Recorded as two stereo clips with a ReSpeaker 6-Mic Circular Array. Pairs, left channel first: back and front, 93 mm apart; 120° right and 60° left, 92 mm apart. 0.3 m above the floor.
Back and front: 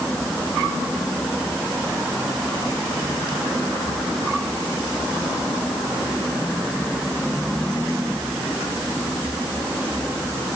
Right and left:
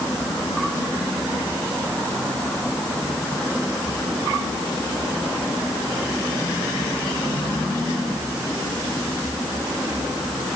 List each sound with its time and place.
Only background noise.